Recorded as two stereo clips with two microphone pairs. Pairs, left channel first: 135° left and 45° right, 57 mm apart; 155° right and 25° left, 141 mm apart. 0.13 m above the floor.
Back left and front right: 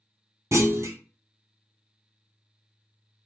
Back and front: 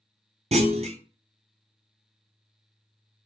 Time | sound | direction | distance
0.5 | a clunk | 10° right | 0.5 m